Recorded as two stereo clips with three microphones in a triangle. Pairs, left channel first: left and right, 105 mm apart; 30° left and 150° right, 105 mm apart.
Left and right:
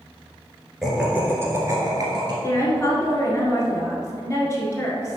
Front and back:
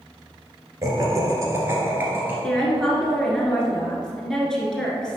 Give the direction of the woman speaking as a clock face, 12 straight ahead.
8 o'clock.